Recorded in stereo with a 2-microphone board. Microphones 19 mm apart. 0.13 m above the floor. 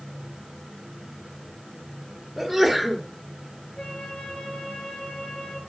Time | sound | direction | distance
2.4 | a sneeze | 5° right (ahead or behind) | 2.5 m
3.8 | a flute | 45° left (ahead or behind) | 4 m